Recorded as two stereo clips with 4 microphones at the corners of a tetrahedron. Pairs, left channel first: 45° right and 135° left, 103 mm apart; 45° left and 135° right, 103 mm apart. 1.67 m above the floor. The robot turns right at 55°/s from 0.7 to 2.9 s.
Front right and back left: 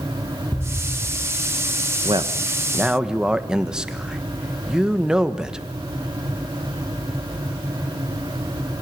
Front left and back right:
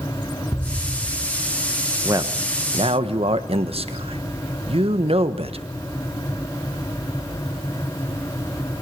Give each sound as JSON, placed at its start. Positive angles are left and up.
{"t": 0.5, "sound": "an explosion", "azimuth_deg": 15, "distance_m": 1.3}
{"t": 2.0, "sound": "a man speaking", "azimuth_deg": 170, "distance_m": 1.4}